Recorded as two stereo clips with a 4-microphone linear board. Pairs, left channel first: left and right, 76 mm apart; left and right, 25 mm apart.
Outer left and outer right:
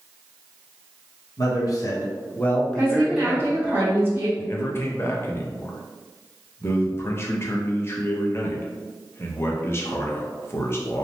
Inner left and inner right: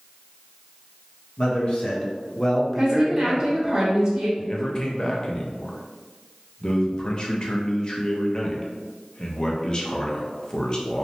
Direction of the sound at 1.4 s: 50° left (ahead or behind).